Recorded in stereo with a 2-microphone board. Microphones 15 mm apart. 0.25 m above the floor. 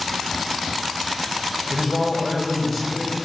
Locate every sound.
1.7 s a man speaking: 15° left (ahead or behind), 1.0 m